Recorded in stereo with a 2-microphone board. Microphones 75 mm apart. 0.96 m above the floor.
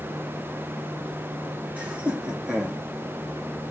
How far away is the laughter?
About 1.9 m.